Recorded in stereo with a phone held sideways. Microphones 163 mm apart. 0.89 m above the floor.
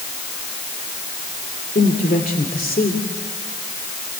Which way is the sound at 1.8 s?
60° left (ahead or behind).